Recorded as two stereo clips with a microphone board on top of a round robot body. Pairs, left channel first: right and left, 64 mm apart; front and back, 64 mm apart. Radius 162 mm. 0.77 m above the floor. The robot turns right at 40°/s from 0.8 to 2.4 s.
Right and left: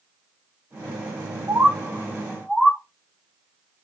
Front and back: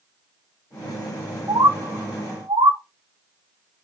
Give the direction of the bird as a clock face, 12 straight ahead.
7 o'clock.